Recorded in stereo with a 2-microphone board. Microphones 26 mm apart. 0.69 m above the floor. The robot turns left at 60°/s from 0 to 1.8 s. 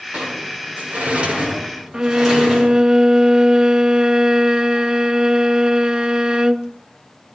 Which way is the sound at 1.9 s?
30° right (ahead or behind).